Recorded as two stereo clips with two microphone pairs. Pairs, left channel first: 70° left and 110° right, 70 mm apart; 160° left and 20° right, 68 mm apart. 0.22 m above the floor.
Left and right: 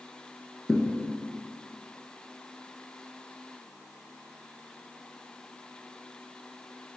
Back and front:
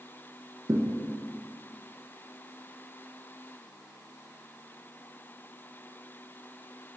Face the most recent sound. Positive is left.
turn(degrees=-10)